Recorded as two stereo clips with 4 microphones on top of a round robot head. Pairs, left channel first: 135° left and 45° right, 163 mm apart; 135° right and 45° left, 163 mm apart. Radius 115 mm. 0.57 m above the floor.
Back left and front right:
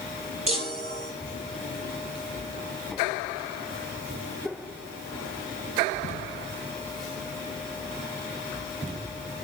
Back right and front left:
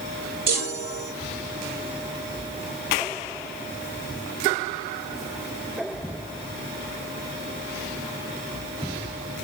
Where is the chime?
10° left, 6.5 m.